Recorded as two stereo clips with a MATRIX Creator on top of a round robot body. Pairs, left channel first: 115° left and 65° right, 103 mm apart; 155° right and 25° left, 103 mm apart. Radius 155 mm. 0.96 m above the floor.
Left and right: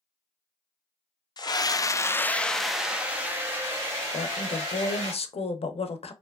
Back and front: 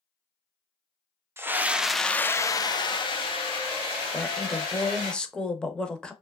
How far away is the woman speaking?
About 0.6 m.